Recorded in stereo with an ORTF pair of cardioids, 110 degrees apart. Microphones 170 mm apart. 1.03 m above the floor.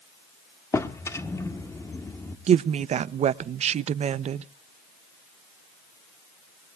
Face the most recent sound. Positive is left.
turn(degrees=-45)